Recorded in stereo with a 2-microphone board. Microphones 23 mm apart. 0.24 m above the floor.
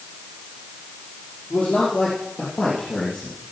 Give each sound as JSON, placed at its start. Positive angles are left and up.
{"t": 1.5, "sound": "a man speaking", "side_deg": 65, "distance_m": 5.0}